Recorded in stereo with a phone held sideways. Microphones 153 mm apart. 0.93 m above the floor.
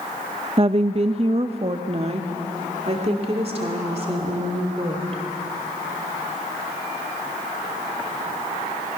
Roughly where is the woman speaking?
Right.